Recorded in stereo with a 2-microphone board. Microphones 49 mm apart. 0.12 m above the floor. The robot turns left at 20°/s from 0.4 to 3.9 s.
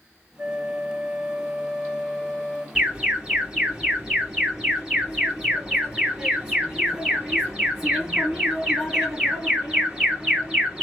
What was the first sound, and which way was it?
A flute, 165° right.